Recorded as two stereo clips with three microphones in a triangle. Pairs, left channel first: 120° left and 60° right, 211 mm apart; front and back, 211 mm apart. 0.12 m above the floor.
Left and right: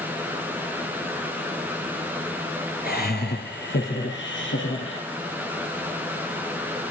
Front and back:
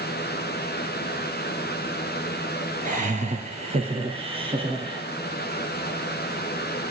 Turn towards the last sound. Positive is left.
turn(degrees=115)